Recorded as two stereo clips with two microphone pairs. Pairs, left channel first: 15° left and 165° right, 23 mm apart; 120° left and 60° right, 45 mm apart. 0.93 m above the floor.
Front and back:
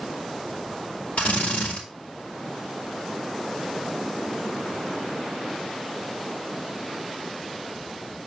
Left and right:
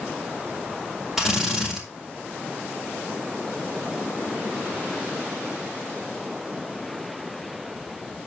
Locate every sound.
1.2 s a drill: 20° left, 4 m